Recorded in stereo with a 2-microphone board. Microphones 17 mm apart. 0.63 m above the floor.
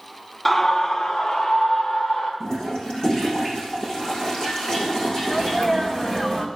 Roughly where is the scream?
Centre.